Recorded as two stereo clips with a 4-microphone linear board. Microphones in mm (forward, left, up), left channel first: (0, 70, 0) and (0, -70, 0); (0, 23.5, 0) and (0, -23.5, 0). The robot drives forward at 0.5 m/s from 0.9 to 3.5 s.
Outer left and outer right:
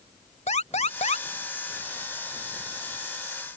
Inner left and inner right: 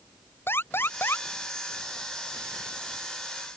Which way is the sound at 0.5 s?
55° left (ahead or behind).